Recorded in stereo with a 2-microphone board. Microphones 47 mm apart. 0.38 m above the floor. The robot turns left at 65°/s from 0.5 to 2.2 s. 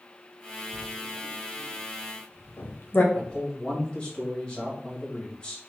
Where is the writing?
20° left (ahead or behind), 0.7 m; by 3.0 s 45° left (ahead or behind), 0.7 m.